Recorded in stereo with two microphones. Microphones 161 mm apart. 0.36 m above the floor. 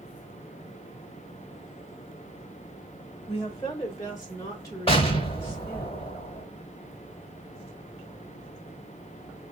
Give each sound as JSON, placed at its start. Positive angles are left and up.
{"t": 3.3, "sound": "a woman speaking", "side_deg": 20, "distance_m": 1.2}
{"t": 4.9, "sound": "an explosion", "side_deg": 35, "distance_m": 1.0}